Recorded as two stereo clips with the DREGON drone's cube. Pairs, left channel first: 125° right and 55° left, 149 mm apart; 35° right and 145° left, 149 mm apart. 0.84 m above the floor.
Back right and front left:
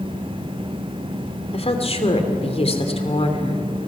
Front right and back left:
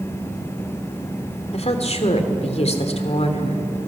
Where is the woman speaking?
80° right, 2.5 m.